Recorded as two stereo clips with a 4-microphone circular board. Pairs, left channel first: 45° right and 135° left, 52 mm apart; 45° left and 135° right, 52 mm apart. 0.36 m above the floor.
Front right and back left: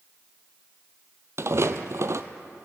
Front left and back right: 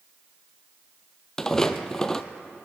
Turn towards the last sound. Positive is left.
turn(degrees=125)